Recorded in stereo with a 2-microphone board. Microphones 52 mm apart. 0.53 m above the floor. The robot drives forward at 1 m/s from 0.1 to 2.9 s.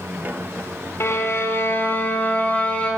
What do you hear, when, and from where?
1.0 s a violin: 55° left (ahead or behind), 1.3 m; by 2.9 s 25° left (ahead or behind), 2.5 m